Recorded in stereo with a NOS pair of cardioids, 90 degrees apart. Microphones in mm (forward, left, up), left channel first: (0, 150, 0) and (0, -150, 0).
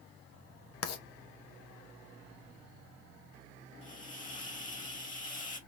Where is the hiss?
25° left, 1.7 m.